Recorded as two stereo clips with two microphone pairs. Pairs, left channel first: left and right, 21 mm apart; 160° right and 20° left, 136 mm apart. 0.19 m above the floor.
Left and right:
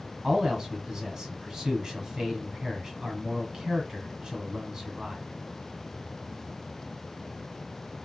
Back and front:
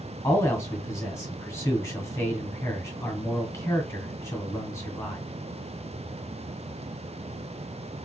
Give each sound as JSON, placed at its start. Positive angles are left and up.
{"t": 0.2, "sound": "a man speaking", "azimuth_deg": -115, "distance_m": 1.8}